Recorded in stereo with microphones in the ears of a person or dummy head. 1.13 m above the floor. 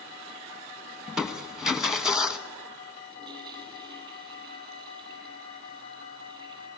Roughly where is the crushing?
Centre.